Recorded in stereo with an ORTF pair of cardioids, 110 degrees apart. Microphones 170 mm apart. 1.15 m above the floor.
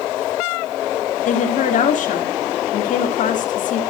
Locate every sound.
1.2 s a woman speaking: 50° left, 2.5 m